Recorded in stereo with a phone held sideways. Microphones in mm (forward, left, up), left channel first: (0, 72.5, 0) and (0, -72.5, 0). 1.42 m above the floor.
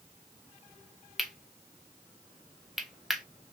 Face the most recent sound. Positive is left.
turn(degrees=0)  # may be behind; listen again after turning